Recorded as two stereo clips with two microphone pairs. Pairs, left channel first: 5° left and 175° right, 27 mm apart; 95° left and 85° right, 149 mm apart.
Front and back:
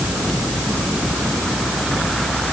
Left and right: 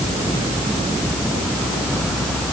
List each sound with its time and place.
Only background noise.